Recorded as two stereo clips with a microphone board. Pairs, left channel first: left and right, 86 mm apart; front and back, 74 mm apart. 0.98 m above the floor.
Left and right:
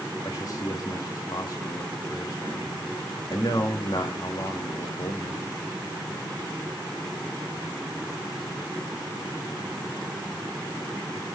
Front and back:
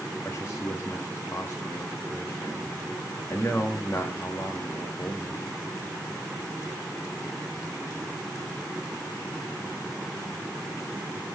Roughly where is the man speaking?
Ahead left.